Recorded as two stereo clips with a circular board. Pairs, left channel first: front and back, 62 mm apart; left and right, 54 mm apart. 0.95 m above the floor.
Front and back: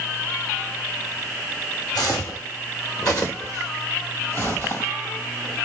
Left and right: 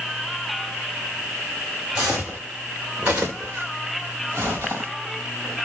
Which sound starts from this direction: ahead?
Footsteps, at 1.9 s.